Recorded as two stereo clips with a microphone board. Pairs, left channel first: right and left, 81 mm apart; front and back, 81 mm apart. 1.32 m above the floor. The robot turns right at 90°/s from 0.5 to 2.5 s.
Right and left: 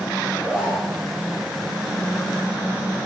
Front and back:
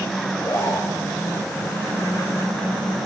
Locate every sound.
0.2 s a zipper: 20° left, 2 m; by 1.0 s 65° left, 2 m